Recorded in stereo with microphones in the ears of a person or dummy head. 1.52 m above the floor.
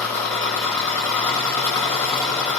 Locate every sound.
0.0 s an engine running: 10° left (ahead or behind), 1.9 m